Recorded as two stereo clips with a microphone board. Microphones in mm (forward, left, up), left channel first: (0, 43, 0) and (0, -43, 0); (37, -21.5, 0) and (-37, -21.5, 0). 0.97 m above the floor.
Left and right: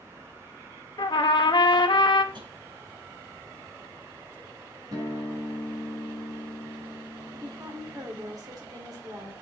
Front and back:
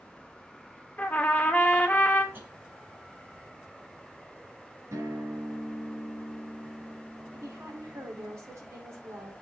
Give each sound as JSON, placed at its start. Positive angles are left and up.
{"t": 1.0, "sound": "a trumpet", "azimuth_deg": 70, "distance_m": 1.1}
{"t": 2.3, "sound": "tapping", "azimuth_deg": -120, "distance_m": 6.0}
{"t": 4.9, "sound": "a guitar", "azimuth_deg": -130, "distance_m": 4.0}
{"t": 7.3, "sound": "a woman speaking", "azimuth_deg": -130, "distance_m": 3.5}